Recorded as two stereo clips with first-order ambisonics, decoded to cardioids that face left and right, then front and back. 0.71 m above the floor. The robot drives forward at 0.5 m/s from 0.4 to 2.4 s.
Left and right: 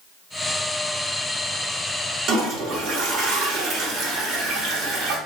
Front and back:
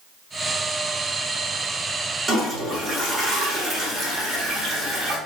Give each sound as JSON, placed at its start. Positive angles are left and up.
{"t": 2.3, "sound": "a toilet flushing", "azimuth_deg": -120, "distance_m": 0.8}